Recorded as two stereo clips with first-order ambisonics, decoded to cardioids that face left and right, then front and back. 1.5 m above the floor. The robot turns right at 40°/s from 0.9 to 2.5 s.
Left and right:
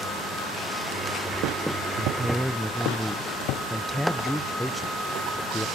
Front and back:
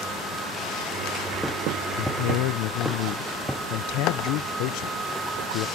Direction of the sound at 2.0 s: 20° right.